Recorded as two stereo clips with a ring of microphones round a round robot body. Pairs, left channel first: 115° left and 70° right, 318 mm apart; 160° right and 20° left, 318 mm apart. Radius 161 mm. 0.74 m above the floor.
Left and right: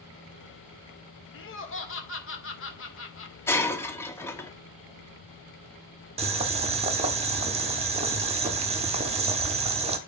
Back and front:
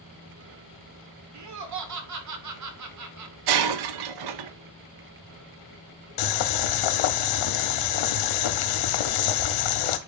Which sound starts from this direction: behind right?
Boiling, at 6.2 s.